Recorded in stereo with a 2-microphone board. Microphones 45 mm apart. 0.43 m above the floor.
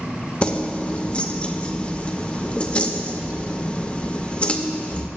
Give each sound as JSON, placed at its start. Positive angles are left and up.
{"t": 0.4, "sound": "keys jangling", "side_deg": 25, "distance_m": 0.5}